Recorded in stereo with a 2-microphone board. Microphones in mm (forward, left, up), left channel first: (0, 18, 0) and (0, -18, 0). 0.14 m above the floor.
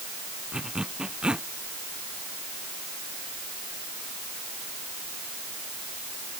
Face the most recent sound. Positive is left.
turn(degrees=-30)  # may be behind; listen again after turning